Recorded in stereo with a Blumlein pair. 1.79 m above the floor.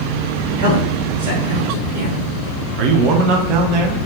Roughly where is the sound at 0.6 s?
Ahead right.